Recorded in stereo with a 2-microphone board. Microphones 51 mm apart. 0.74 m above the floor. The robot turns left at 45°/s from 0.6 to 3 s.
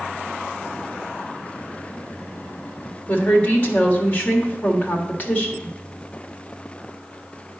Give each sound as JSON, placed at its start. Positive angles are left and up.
{"t": 3.1, "sound": "a woman speaking", "side_deg": 30, "distance_m": 1.6}